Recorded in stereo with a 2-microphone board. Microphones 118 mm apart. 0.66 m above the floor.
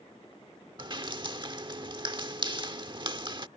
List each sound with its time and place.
0.8 s dripping: 40° right (ahead or behind)